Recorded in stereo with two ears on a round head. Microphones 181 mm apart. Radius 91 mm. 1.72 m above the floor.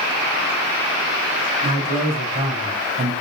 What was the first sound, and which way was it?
A man speaking, 25° right (ahead or behind).